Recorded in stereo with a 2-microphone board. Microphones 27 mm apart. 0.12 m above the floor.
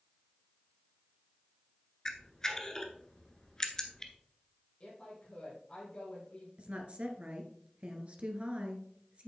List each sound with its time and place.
2.0 s a camera shutter: 25° left (ahead or behind), 1.2 m
4.8 s a woman speaking: 30° left (ahead or behind), 4 m
6.6 s a woman speaking: 45° right (ahead or behind), 1.8 m